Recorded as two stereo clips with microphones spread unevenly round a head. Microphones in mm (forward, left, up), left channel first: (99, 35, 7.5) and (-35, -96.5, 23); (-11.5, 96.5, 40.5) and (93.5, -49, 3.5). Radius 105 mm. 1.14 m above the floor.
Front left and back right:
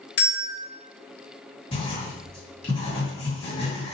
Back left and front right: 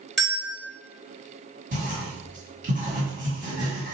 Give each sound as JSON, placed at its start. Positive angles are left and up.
{"t": 0.2, "sound": "a bell", "azimuth_deg": 45, "distance_m": 1.0}
{"t": 1.7, "sound": "writing", "azimuth_deg": -15, "distance_m": 1.9}